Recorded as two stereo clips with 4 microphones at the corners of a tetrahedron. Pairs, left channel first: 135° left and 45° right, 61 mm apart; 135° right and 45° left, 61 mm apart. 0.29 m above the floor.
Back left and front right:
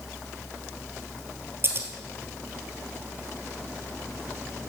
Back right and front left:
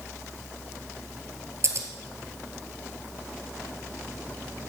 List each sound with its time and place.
1.6 s scissors: 5° left, 1.6 m